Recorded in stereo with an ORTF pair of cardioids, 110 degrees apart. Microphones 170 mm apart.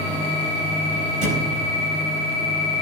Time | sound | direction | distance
1.2 | a thud | 50° right | 4.5 m